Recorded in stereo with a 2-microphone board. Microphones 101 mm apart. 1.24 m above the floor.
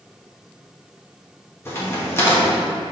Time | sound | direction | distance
1.6 | a crack | 25° left (ahead or behind) | 1.7 m